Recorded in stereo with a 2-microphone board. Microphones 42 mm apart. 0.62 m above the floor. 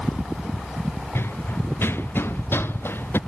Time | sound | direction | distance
1.1 | running footsteps | 70° left (ahead or behind) | ?